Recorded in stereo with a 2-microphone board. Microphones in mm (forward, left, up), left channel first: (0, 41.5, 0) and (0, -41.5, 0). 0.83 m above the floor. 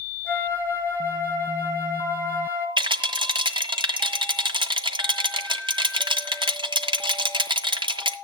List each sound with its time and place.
0.2 s a flute: 25° left (ahead or behind), 3.5 m
2.8 s a rattle: 75° right (ahead or behind), 1.6 m